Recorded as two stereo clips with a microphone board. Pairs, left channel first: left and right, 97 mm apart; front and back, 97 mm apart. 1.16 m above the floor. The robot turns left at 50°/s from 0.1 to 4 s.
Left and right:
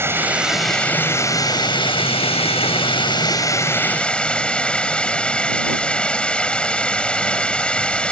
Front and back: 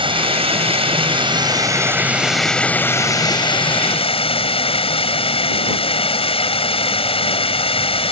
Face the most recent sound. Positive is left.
turn(degrees=10)